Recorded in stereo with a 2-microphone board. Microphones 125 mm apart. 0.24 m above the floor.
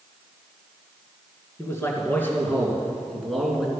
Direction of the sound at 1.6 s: 20° left (ahead or behind).